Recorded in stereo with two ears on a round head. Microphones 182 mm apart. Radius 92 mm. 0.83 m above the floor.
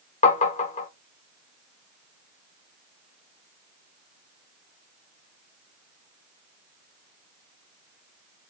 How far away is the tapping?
About 0.9 m.